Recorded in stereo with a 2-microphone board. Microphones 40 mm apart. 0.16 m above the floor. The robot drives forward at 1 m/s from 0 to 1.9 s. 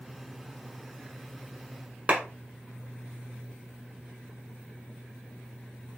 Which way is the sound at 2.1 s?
35° right (ahead or behind).